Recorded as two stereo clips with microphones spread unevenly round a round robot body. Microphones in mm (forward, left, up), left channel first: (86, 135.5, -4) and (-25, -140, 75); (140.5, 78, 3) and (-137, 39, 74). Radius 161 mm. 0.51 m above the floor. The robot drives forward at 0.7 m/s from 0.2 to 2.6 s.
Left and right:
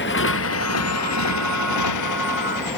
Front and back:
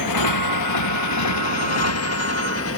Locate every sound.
0.0 s a motorcycle: 15° left; by 2.8 s 50° left